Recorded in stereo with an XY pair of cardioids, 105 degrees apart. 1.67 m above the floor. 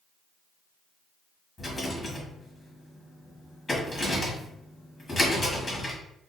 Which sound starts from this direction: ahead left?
A rattle, at 1.6 s.